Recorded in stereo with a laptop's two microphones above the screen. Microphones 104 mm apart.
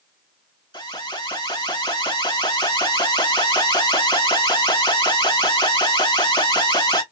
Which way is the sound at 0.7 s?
45° left (ahead or behind).